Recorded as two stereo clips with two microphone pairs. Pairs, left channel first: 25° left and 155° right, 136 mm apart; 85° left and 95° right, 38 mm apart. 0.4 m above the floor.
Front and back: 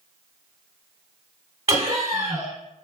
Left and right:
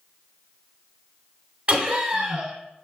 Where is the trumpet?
No trumpet in this recording.